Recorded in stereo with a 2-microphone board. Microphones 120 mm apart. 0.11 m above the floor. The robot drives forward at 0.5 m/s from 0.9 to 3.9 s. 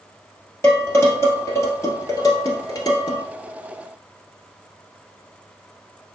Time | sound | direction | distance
0.6 | dishes clattering | 20° left (ahead or behind) | 2 m